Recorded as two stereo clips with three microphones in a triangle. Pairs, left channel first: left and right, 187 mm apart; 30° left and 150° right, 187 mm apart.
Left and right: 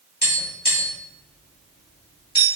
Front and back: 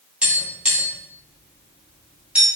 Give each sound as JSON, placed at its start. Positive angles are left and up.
{"t": 0.2, "sound": "tapping", "azimuth_deg": 125, "distance_m": 1.8}